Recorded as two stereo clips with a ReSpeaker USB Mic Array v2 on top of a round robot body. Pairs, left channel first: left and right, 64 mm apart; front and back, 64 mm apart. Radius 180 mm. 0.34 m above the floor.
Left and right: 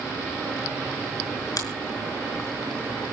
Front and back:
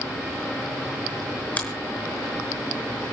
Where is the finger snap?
65° left, 5.5 m.